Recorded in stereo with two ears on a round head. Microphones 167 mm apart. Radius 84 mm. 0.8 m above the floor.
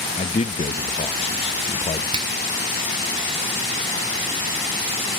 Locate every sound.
0.2 s a man speaking: 30° left (ahead or behind), 0.7 m
2.1 s a finger snap: 25° right (ahead or behind), 2 m